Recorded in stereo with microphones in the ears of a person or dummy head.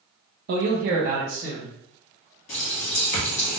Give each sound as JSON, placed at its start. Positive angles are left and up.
{"t": 0.5, "sound": "a man speaking", "side_deg": -45, "distance_m": 0.6}
{"t": 2.5, "sound": "a running tap", "side_deg": 35, "distance_m": 0.6}